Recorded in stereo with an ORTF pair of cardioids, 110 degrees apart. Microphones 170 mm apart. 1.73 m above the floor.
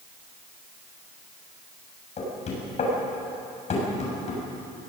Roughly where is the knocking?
Ahead left.